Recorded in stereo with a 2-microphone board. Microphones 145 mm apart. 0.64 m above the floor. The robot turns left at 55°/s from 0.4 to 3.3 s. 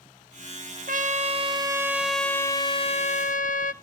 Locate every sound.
0.9 s a trumpet: 110° right, 0.7 m; by 3.7 s 115° left, 0.7 m